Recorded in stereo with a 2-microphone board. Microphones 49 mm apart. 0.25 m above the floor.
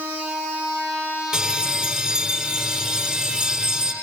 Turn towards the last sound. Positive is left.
turn(degrees=-10)  # may be behind; listen again after turning